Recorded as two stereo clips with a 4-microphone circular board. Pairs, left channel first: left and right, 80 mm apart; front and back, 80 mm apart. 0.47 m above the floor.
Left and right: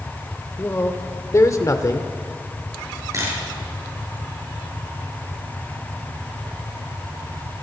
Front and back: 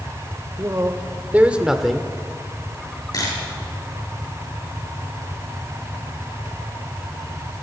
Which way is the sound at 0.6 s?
145° left.